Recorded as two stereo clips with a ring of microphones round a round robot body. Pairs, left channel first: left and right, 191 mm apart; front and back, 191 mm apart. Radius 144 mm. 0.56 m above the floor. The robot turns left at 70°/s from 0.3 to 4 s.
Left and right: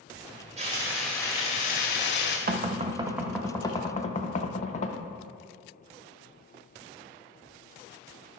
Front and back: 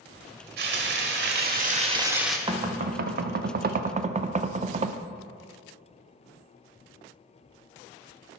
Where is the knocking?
120° right, 0.6 m; by 5.0 s 135° left, 0.6 m.